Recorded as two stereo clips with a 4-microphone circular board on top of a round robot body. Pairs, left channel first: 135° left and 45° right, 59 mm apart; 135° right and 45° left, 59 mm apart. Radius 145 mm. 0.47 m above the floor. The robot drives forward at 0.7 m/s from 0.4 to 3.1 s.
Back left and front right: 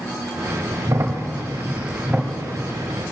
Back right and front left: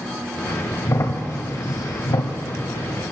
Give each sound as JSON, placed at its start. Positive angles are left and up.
{"t": 0.8, "sound": "a crack", "azimuth_deg": -85, "distance_m": 1.3}